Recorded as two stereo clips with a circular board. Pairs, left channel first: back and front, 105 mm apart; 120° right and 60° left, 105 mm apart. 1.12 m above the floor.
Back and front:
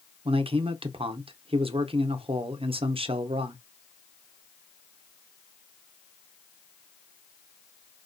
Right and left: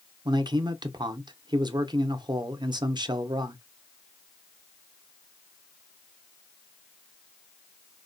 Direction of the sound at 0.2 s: 15° left.